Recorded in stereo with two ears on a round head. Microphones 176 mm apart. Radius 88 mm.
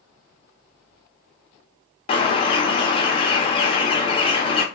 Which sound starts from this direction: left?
A bird, at 2.1 s.